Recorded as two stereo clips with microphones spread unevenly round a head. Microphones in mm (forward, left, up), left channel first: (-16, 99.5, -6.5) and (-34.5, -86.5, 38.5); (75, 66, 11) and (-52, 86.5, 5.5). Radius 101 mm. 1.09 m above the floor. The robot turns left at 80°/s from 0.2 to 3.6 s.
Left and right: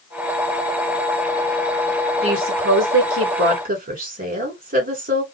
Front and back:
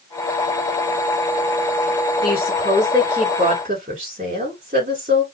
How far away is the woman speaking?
About 3 m.